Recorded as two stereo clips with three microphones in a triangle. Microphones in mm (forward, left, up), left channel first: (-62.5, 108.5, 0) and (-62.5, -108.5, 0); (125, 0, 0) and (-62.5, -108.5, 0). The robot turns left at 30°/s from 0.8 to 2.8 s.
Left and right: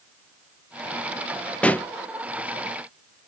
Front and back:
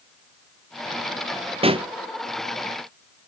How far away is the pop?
About 0.6 m.